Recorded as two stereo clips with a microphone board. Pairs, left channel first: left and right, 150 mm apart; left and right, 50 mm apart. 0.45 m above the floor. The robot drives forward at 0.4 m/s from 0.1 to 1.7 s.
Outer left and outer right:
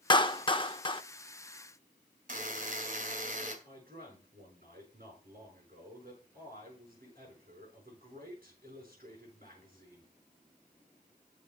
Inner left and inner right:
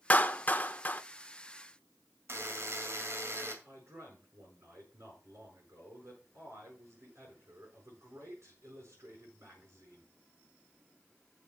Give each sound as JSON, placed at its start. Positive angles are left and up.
{"t": 0.1, "sound": "a clap", "side_deg": 30, "distance_m": 0.6}
{"t": 2.3, "sound": "a buzzer", "side_deg": -65, "distance_m": 2.5}
{"t": 3.6, "sound": "a man speaking", "side_deg": -75, "distance_m": 7.0}